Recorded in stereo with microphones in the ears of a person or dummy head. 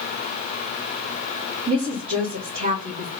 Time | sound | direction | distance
1.7 | a woman speaking | 40° right (ahead or behind) | 1.2 m